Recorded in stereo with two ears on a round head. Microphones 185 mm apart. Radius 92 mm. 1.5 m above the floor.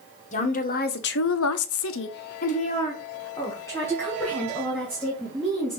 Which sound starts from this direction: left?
A woman speaking, at 0.3 s.